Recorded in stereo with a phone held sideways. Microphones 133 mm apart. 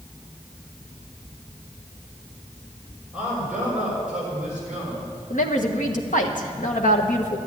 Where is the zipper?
I don't hear a zipper.